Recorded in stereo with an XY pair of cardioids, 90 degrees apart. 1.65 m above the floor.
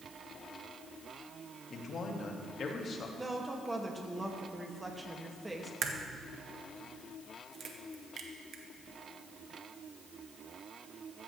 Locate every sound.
1.7 s a man speaking: 60° left, 2 m
3.2 s a woman speaking: 15° right, 2.5 m
5.8 s a crack: 60° right, 1.6 m